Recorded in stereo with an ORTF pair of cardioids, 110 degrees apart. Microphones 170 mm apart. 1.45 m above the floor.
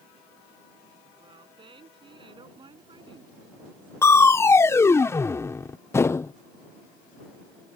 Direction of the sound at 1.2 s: 30° right.